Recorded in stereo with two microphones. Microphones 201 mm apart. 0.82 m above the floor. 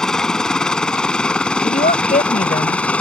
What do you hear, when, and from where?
0.0 s a helicopter: 5° left (ahead or behind)
1.6 s a woman speaking: 45° left (ahead or behind)